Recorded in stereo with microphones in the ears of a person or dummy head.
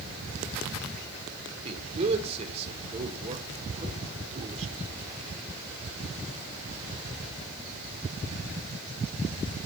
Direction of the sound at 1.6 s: 40° right (ahead or behind).